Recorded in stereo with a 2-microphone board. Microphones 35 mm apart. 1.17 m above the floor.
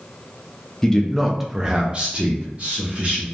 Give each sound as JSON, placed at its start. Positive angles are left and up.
{"t": 0.8, "sound": "a man speaking", "side_deg": 20, "distance_m": 0.6}